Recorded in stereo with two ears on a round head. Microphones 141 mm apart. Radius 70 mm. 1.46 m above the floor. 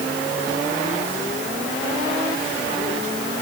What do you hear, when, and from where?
Only background noise.